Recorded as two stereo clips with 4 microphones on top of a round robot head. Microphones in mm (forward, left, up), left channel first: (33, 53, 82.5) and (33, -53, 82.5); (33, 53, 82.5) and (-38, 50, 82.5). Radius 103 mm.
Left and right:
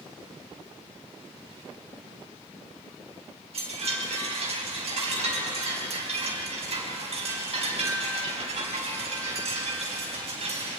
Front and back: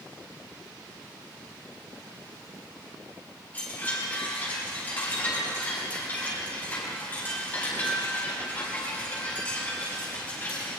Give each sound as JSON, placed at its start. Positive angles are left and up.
{"t": 3.5, "sound": "a chime", "azimuth_deg": -65, "distance_m": 5.0}